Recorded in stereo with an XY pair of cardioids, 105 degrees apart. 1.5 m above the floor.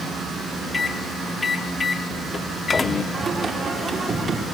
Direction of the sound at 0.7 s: 25° left.